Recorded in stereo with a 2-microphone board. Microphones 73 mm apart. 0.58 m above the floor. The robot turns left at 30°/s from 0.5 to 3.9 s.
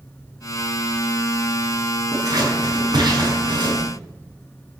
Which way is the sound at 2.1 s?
50° right (ahead or behind).